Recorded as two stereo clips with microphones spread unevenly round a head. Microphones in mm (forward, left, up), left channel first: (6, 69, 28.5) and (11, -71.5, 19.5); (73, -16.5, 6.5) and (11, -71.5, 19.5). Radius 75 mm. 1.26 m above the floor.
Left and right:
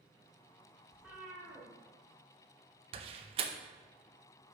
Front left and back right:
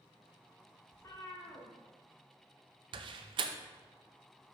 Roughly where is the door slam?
Behind right.